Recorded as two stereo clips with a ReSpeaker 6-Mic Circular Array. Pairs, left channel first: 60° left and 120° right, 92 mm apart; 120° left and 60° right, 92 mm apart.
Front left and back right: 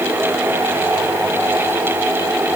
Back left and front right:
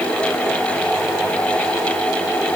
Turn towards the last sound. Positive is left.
No sound to turn to.